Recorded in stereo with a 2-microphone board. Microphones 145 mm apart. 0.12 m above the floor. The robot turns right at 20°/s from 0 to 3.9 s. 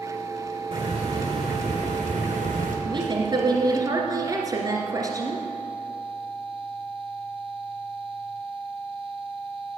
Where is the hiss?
140° right, 3.5 m; by 2.8 s 100° right, 3.5 m.